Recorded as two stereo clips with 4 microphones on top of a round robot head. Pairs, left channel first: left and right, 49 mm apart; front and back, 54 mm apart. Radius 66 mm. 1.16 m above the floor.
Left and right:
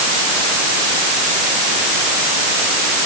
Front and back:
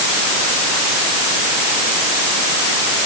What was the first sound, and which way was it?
Only background noise.